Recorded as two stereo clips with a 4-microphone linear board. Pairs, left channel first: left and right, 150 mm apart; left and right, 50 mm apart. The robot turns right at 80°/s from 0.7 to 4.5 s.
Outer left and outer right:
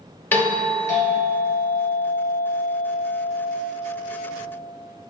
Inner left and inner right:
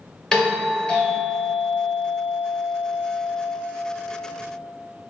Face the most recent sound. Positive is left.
turn(degrees=-30)